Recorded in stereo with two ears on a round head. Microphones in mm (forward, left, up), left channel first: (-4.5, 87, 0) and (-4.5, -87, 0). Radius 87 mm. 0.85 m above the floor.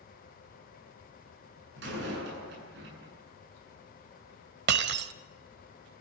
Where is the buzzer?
I don't hear a buzzer.